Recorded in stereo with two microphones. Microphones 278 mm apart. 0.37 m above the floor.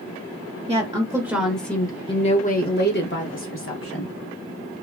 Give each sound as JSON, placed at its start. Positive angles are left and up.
{"t": 0.7, "sound": "a woman speaking", "side_deg": -20, "distance_m": 1.0}